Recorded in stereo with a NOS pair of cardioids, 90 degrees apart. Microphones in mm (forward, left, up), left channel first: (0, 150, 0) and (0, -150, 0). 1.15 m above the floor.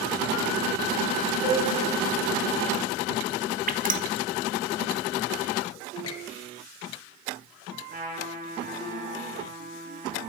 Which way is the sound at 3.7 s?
30° right.